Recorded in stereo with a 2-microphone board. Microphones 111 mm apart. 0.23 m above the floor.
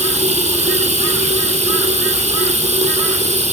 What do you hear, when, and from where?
0.0 s running water: 80° right, 4.5 m